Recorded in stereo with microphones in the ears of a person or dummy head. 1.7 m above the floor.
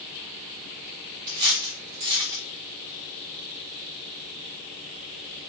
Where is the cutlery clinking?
15° right (ahead or behind), 0.8 m.